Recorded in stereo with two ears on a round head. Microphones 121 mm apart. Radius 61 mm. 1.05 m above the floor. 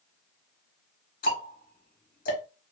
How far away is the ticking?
About 1.0 m.